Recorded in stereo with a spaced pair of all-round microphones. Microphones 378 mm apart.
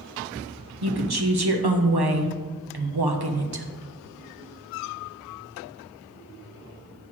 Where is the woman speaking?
80° right, 1.1 m.